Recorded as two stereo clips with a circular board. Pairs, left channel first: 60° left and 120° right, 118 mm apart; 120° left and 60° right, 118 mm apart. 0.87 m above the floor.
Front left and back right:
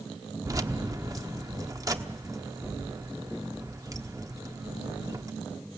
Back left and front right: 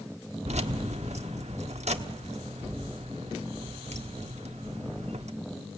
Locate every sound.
0.5 s keys jangling: 60° right, 1.0 m